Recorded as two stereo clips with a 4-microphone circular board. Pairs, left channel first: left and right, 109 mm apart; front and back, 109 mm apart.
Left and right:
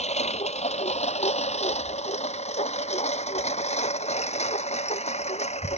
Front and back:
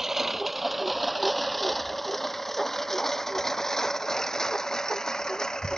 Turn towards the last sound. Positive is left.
turn(degrees=85)